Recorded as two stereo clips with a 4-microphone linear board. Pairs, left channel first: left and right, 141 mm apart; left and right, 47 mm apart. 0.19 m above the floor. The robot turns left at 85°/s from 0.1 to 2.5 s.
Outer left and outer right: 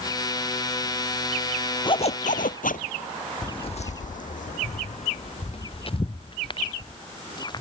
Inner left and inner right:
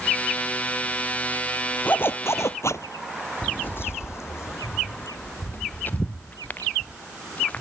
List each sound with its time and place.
1.9 s a zipper: 145° left; by 2.9 s 90° left
3.4 s footsteps: 30° left (ahead or behind); by 7.6 s 35° left (ahead or behind)